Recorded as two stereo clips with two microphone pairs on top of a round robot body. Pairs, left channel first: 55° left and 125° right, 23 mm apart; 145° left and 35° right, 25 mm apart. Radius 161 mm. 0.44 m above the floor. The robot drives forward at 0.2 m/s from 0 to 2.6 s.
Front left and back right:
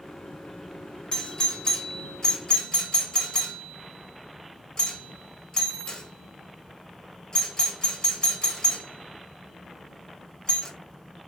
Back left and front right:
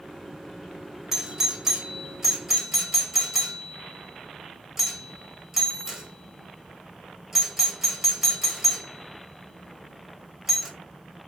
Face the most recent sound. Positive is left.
turn(degrees=40)